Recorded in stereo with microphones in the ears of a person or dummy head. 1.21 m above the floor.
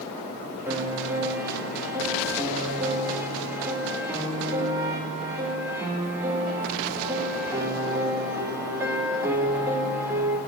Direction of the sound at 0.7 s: 20° right (ahead or behind).